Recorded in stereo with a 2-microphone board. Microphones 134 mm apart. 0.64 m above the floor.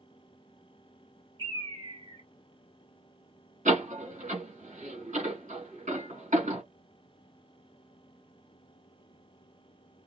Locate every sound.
1.4 s a bird: 35° right (ahead or behind), 1.9 m
3.6 s a door slam: 70° right (ahead or behind), 2.5 m